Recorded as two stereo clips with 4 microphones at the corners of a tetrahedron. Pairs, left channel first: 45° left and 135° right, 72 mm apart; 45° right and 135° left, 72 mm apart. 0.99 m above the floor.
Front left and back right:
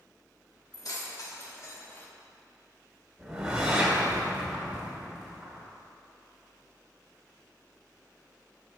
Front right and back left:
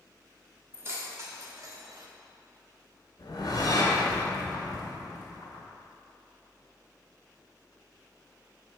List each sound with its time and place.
0.7 s keys jangling: 80° left, 1.3 m; by 2.1 s 110° left, 0.8 m
3.2 s a whoosh: 60° right, 1.6 m